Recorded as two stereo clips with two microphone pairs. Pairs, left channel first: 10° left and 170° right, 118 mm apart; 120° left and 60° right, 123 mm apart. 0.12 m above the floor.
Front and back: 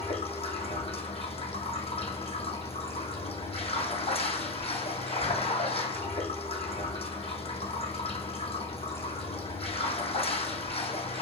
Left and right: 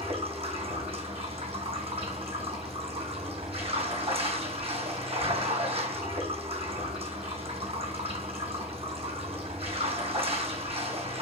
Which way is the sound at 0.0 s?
20° right.